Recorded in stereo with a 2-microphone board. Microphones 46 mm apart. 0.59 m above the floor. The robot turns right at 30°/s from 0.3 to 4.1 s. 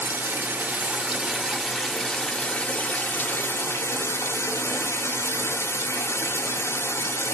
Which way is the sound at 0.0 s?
45° right.